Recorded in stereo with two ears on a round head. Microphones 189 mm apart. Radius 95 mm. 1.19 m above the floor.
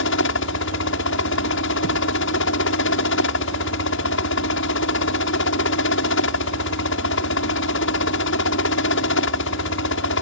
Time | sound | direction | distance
0.0 | a helicopter | 70° left (ahead or behind) | ?